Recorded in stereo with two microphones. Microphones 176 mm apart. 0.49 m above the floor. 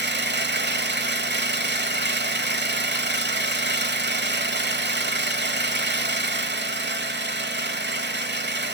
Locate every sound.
0.0 s an engine running: 80° right, 1.2 m